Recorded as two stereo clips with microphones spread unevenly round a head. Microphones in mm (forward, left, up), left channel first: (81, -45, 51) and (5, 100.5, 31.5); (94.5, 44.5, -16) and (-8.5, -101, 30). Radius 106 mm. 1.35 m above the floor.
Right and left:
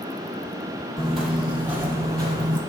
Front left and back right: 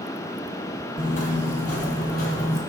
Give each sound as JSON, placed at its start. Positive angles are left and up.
{"t": 1.0, "sound": "footsteps", "azimuth_deg": 15, "distance_m": 1.7}